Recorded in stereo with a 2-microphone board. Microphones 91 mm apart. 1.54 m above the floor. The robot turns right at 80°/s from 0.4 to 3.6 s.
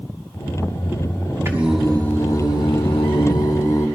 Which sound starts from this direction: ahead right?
Singing, at 1.4 s.